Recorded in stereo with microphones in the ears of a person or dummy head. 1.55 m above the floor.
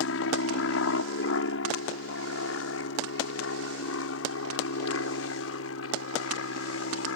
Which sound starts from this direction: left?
An aircraft, at 0.0 s.